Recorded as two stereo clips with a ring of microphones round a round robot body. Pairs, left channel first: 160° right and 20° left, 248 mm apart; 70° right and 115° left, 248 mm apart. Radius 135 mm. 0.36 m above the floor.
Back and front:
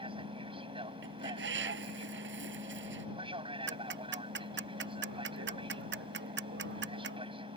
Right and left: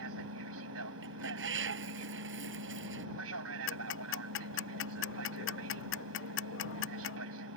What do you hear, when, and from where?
0.0 s an aircraft: 90° left
1.0 s a bird: 70° left
3.7 s ticking: 25° right